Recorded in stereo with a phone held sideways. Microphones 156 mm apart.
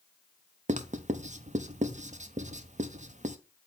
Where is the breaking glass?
No breaking glass in this recording.